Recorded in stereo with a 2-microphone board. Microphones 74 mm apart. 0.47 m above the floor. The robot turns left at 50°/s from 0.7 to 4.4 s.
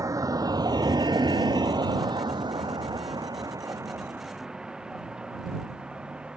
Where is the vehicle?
50° right (ahead or behind); by 6.4 s 15° right (ahead or behind).